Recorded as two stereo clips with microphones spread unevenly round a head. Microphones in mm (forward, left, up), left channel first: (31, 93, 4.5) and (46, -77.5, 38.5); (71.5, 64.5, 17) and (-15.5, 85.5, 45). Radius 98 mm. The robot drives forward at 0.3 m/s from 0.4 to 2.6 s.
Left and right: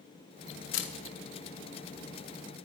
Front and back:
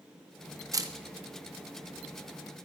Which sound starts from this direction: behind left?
A camera shutter, at 0.7 s.